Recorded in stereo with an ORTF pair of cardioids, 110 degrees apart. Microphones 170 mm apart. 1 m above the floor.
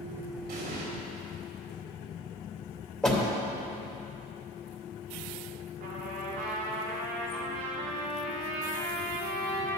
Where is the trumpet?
65° right, 3 m.